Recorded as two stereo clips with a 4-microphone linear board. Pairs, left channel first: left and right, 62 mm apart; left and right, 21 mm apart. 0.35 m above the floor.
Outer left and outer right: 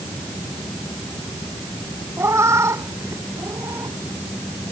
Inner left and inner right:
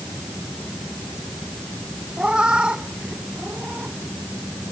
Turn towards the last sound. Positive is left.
turn(degrees=-50)  # may be behind; listen again after turning